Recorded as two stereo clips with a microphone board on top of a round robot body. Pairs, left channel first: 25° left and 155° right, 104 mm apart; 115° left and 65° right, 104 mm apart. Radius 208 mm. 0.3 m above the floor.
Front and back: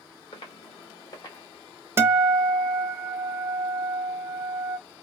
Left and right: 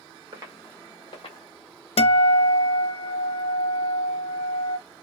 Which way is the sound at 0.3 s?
20° right.